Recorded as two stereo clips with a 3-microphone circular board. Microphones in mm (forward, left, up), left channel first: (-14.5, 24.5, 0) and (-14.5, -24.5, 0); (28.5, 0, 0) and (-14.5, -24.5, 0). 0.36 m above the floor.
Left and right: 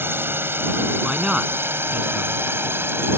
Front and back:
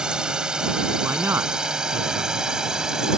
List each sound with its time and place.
0.0 s a drone: 85° right; by 3.2 s 75° right
1.0 s a man speaking: 165° right